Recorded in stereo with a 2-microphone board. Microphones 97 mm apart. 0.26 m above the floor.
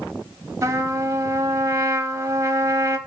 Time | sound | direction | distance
0.6 | a trumpet | 30° right (ahead or behind) | 0.9 m